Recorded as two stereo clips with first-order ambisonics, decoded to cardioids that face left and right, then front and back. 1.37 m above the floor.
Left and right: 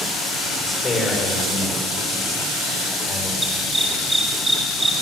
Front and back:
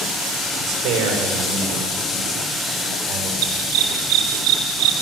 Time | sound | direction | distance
0.6 | a man speaking | 165° left | 5 m
3.4 | a dog barking | 175° right | 5.5 m